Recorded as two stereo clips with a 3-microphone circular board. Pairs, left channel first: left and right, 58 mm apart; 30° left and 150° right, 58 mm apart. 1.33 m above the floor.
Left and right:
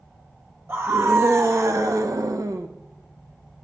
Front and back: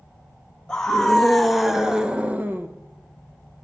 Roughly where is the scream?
Ahead right.